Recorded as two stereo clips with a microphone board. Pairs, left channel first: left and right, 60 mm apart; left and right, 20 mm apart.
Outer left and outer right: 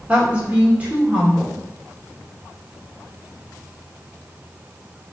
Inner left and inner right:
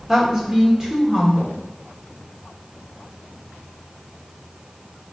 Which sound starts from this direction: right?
A woman speaking, at 0.1 s.